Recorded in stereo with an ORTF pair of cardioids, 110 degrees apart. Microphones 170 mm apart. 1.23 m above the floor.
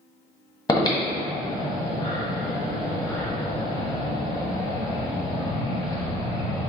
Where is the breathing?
20° left, 1.3 m.